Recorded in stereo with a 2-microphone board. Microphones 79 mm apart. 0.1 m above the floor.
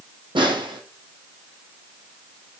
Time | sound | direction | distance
0.3 | a snare drum | 75° right (ahead or behind) | 0.7 m